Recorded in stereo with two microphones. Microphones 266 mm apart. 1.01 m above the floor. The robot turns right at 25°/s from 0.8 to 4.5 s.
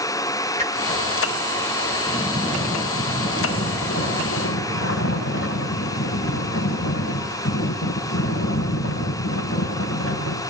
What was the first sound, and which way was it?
A whoosh, 25° right (ahead or behind).